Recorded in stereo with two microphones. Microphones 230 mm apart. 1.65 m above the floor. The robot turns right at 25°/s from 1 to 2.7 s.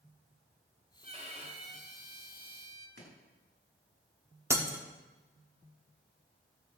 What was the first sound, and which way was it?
A violin, 125° right.